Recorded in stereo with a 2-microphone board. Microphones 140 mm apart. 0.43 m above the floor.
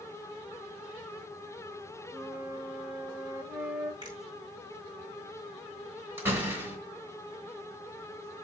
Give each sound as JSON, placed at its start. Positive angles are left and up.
{"t": 2.1, "sound": "a flute", "side_deg": -15, "distance_m": 1.0}
{"t": 4.0, "sound": "a finger snap", "side_deg": -30, "distance_m": 4.0}
{"t": 6.2, "sound": "a door slam", "side_deg": -15, "distance_m": 3.5}